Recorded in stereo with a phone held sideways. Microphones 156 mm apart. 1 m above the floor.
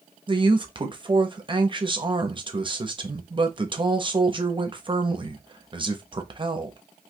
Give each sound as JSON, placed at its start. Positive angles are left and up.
{"t": 0.3, "sound": "a man speaking", "side_deg": -30, "distance_m": 0.7}